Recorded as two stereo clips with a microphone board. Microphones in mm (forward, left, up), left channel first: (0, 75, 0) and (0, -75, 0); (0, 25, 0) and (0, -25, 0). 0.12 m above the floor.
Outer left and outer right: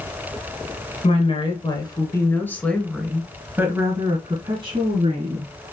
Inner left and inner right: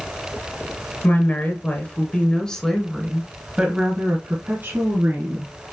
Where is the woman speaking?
45° left (ahead or behind), 1.6 m; by 5.5 s 50° right (ahead or behind), 1.9 m.